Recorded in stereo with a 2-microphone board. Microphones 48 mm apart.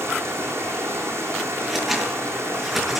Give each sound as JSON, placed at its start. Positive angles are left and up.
{"t": 0.0, "sound": "running water", "side_deg": -75, "distance_m": 4.5}
{"t": 1.6, "sound": "scissors", "side_deg": -5, "distance_m": 6.0}